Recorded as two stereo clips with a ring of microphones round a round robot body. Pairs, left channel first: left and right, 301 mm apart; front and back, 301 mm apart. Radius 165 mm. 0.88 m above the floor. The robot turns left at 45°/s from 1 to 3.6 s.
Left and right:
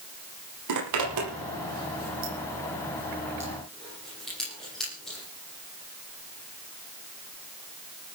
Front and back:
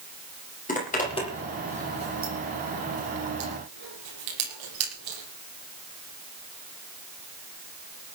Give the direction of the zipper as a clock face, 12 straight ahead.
2 o'clock.